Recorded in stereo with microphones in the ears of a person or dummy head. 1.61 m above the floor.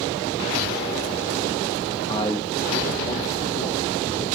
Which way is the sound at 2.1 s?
35° left (ahead or behind).